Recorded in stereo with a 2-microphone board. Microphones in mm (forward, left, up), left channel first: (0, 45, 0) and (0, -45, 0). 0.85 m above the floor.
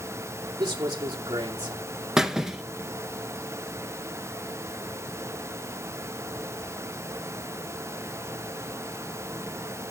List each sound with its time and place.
0.6 s a man speaking: 50° right (ahead or behind), 2 m
2.2 s a squeak: 5° right (ahead or behind), 0.8 m